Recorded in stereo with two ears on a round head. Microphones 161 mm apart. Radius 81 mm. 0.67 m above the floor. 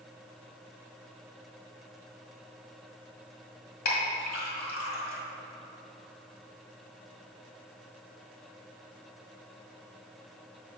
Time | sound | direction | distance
3.9 | a clink | 50° left (ahead or behind) | 1.5 m